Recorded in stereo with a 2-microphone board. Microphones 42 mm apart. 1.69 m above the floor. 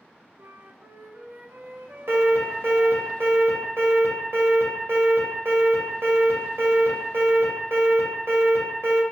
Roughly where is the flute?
Right.